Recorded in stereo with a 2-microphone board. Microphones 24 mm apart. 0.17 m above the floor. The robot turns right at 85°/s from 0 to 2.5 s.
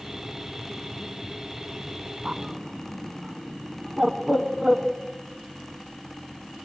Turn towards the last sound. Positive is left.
turn(degrees=-20)  # may be behind; listen again after turning